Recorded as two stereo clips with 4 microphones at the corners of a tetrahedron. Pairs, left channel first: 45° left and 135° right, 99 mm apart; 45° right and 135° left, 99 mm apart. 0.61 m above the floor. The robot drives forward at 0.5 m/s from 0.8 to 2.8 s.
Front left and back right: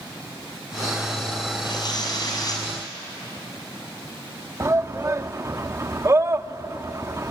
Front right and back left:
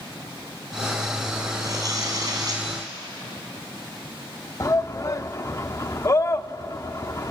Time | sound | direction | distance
1.6 | tearing paper | 85° left | 5 m
4.6 | a shout | 85° right | 0.8 m